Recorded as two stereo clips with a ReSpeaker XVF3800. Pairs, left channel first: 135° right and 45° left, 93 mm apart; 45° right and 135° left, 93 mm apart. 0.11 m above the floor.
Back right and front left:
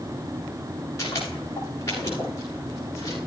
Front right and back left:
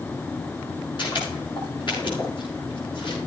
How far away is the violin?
I don't hear a violin.